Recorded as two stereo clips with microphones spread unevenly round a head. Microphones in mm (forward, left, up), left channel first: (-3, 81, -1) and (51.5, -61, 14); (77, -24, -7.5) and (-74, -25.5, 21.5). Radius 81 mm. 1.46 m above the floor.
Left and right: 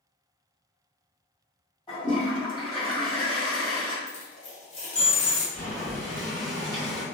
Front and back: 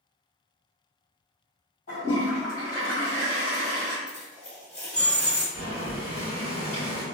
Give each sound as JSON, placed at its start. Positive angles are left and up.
{"t": 1.9, "sound": "a toilet flushing", "azimuth_deg": 55, "distance_m": 1.5}
{"t": 4.1, "sound": "a dropped coin", "azimuth_deg": 90, "distance_m": 1.8}
{"t": 5.5, "sound": "boiling", "azimuth_deg": 150, "distance_m": 1.5}